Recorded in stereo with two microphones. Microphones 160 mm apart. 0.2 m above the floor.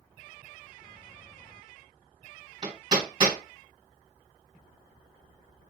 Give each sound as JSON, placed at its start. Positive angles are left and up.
{"t": 2.6, "sound": "hammering", "side_deg": -35, "distance_m": 1.7}